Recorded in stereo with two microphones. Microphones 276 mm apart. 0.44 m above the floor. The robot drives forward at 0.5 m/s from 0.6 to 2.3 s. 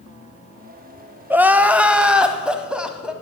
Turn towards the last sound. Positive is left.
turn(degrees=-5)  # may be behind; listen again after turning